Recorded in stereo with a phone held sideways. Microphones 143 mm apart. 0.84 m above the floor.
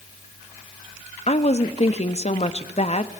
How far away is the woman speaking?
About 0.9 m.